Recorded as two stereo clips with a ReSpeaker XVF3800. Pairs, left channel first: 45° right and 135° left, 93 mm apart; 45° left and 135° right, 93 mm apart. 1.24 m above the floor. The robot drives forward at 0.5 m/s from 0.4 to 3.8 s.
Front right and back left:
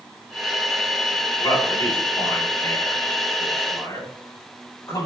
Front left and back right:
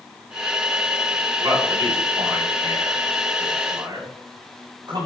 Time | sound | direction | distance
1.4 | a man speaking | 85° right | 8.5 m